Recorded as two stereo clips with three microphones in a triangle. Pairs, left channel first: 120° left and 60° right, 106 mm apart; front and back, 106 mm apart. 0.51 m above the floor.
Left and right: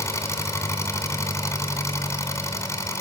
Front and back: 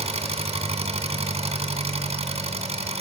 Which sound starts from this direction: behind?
An engine running, at 0.0 s.